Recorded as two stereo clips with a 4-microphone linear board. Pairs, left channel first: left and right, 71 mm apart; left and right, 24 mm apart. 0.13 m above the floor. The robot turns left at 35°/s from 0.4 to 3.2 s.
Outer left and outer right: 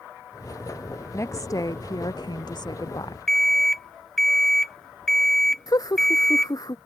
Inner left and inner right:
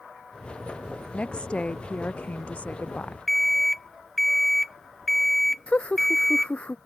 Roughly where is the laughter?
Left.